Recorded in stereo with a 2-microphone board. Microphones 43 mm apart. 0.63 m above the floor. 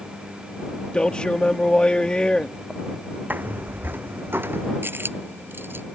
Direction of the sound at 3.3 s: 50° right (ahead or behind).